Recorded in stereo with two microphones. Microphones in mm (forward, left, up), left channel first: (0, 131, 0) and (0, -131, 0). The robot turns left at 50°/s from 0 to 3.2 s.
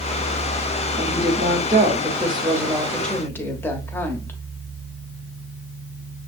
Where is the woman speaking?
80° right, 1.0 m; by 4.4 s 165° left, 1.0 m.